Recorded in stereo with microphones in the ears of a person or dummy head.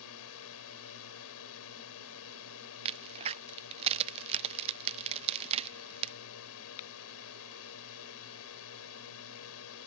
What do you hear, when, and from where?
0.0 s a drone: 80° left
2.9 s a crack: 30° right (ahead or behind)